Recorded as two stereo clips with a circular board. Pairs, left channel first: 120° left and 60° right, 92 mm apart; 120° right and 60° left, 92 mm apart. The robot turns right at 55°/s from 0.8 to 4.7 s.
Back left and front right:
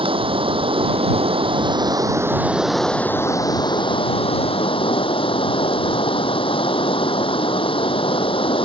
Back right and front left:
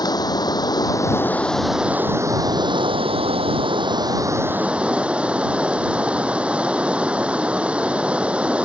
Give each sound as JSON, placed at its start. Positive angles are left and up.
{"t": 0.0, "sound": "running water", "azimuth_deg": -75}